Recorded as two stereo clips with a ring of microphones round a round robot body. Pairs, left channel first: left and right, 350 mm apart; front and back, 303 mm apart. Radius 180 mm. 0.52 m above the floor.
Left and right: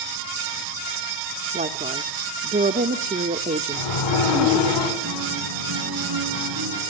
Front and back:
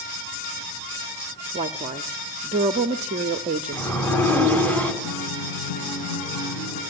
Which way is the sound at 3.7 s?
85° left.